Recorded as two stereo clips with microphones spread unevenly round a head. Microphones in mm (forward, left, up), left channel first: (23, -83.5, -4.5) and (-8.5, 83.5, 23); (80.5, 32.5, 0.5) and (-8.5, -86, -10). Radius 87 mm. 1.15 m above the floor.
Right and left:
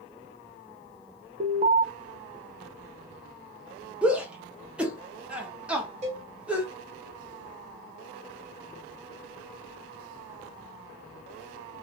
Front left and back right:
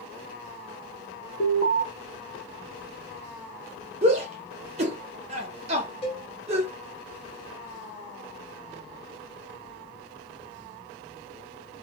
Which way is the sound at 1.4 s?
45° left.